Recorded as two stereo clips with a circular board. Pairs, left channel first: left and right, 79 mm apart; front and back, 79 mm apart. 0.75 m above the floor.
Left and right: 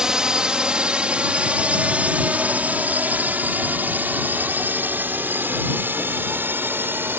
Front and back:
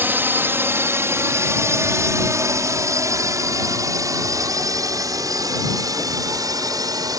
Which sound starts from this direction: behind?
A drone, at 0.0 s.